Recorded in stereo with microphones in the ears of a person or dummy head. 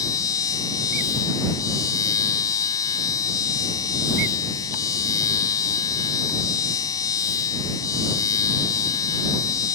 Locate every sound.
0.0 s a machine running: 20° left (ahead or behind)